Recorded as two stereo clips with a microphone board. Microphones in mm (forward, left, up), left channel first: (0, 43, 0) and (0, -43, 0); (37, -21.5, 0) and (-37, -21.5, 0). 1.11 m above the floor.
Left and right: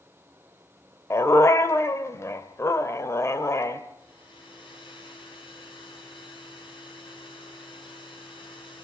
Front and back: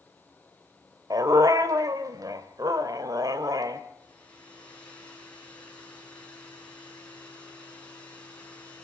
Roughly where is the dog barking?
Behind left.